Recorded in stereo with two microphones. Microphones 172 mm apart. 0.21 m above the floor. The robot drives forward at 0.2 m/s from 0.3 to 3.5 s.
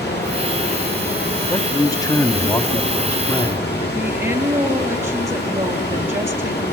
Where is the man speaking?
20° left (ahead or behind), 1.1 m; by 3.7 s 25° left (ahead or behind), 1.0 m.